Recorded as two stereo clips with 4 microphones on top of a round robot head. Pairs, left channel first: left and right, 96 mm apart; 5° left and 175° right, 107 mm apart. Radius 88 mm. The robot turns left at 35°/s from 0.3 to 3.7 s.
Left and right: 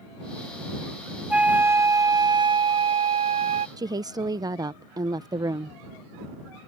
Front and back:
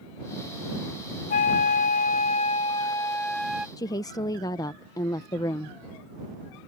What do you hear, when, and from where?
1.3 s a flute: 10° right; by 3.7 s 95° right
3.8 s a woman speaking: 50° right